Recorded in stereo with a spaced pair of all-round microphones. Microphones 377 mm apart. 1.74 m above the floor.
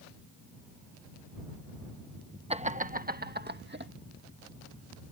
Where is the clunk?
I don't hear a clunk.